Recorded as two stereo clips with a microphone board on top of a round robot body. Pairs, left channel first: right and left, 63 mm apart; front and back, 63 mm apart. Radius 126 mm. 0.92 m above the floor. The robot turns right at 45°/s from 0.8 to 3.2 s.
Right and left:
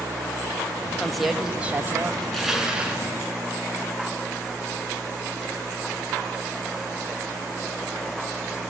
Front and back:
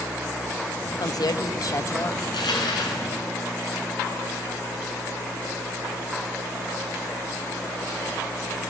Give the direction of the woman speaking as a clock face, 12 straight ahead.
12 o'clock.